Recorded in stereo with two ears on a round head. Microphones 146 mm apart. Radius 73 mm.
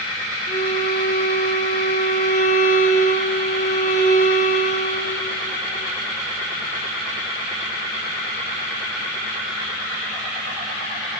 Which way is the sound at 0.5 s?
65° left (ahead or behind).